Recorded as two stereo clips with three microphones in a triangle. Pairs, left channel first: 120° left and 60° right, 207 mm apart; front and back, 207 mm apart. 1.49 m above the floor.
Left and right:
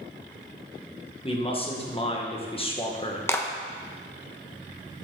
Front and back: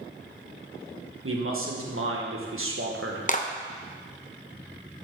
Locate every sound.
1.2 s a man speaking: 175° right, 1.5 m
3.3 s a clap: 45° left, 0.8 m